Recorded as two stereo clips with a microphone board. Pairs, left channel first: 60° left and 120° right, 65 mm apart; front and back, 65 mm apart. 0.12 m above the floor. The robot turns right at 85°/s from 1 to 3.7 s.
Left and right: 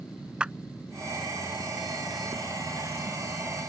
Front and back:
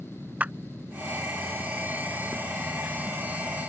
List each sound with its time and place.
0.4 s a clap: 165° right